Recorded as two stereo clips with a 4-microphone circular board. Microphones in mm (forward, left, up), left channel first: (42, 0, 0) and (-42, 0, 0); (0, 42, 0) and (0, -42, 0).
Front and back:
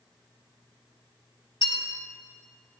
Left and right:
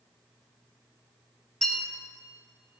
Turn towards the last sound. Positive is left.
turn(degrees=10)